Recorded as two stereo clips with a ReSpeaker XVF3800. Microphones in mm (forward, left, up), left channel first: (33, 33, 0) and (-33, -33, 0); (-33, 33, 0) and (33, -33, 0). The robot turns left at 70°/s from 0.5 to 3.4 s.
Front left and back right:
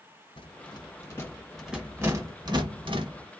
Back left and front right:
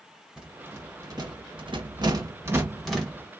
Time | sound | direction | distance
0.4 | a rattle | 35° left | 1.1 m